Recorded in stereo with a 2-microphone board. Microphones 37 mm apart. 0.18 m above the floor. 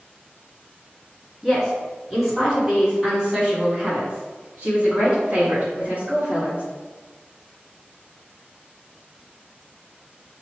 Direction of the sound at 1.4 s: Centre (ahead or behind).